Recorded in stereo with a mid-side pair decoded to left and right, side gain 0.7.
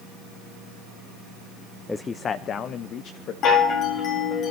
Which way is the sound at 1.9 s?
15° left.